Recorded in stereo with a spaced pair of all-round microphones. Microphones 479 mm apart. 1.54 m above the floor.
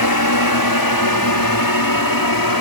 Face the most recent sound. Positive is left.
turn(degrees=45)  # may be behind; listen again after turning